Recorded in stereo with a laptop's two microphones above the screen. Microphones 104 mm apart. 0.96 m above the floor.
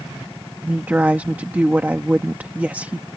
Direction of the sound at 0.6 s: 15° right (ahead or behind).